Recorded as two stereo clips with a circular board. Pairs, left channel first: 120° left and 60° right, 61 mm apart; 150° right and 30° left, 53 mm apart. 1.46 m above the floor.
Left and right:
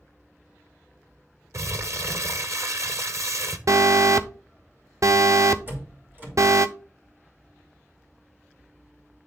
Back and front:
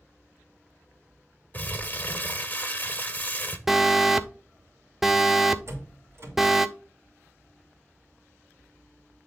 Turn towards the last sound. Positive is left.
turn(degrees=0)